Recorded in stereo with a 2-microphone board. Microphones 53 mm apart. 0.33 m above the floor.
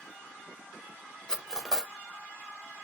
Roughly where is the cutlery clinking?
Centre.